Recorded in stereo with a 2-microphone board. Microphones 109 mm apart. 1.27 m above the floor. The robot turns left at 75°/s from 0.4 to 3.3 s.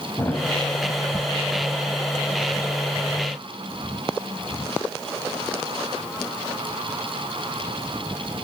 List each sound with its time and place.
0.2 s a thud: 20° left (ahead or behind), 4 m; by 0.5 s 15° left (ahead or behind), 4 m